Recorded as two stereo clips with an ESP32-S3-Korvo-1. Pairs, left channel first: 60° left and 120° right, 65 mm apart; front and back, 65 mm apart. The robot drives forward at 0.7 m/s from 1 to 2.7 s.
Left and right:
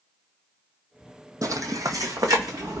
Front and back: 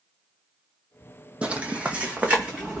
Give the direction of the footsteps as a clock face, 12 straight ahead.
4 o'clock.